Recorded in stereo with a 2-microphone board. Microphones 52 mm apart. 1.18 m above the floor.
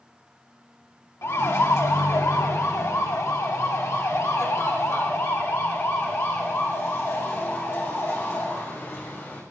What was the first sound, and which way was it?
A siren, 65° left (ahead or behind).